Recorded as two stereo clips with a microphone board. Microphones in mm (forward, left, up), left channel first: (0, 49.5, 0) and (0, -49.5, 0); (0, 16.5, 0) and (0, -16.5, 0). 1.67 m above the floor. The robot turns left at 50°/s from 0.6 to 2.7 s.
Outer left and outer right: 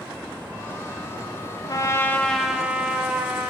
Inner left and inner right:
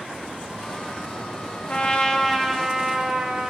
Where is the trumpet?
40° left, 1.6 m; by 3.5 s 15° right, 1.6 m.